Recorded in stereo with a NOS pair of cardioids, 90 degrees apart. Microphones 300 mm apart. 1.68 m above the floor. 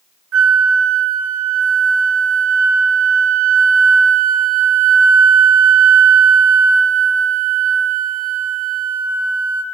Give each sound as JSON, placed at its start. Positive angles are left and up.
{"t": 0.3, "sound": "a flute", "azimuth_deg": -50, "distance_m": 0.9}